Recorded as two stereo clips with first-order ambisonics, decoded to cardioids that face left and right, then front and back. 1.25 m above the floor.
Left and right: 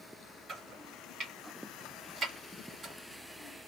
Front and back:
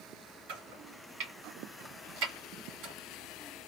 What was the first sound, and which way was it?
Chopping, 160° right.